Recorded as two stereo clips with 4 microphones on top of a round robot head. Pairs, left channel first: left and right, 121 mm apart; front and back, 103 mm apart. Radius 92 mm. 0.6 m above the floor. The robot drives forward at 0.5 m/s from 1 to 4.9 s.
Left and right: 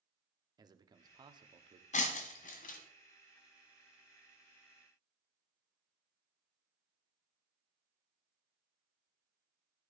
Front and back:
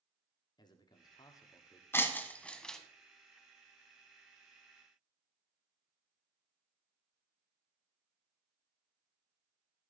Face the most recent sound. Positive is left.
turn(degrees=125)